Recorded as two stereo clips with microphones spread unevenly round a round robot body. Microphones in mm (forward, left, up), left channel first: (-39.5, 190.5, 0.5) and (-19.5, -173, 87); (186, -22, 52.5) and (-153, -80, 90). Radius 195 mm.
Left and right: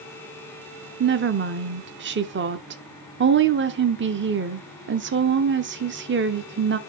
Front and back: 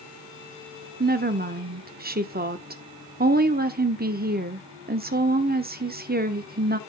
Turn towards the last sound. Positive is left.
turn(degrees=-135)